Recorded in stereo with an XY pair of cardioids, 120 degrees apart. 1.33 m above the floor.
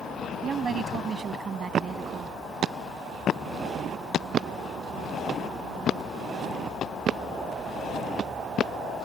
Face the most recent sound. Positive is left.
turn(degrees=-35)